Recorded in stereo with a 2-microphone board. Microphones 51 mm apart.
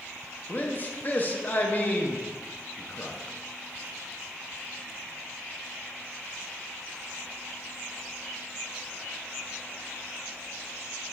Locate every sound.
0.5 s a man speaking: 35° left (ahead or behind), 0.6 m